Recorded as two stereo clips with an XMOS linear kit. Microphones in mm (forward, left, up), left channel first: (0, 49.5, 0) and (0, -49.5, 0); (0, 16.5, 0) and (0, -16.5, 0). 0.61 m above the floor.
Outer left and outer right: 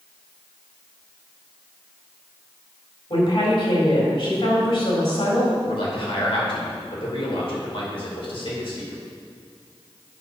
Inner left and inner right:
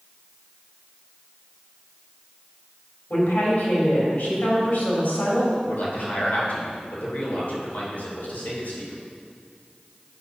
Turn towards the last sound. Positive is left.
turn(degrees=65)  # may be behind; listen again after turning